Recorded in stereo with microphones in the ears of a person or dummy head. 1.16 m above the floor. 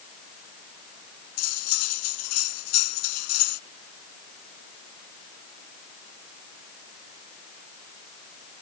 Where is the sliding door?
I don't hear a sliding door.